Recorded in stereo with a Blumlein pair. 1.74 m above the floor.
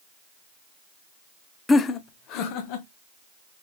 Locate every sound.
1.7 s laughter: 10° left, 0.5 m; by 2.9 s 45° left, 1.4 m